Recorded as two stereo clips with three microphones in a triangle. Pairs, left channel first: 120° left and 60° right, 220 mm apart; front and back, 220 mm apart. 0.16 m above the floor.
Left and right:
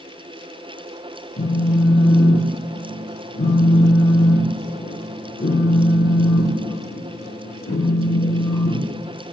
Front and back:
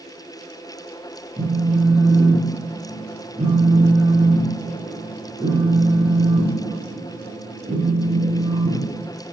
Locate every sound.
1.4 s a phone buzzing: 105° left, 2 m